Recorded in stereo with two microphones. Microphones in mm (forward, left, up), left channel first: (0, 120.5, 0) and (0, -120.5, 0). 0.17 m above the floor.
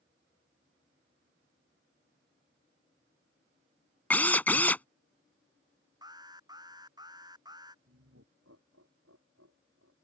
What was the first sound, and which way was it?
A drill, 5° left (ahead or behind).